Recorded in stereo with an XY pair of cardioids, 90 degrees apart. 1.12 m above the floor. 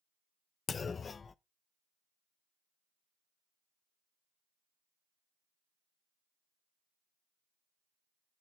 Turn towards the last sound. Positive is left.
turn(degrees=45)